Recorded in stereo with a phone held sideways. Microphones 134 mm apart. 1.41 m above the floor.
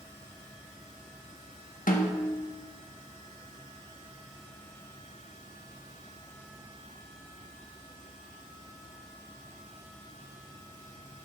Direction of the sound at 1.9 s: 85° left.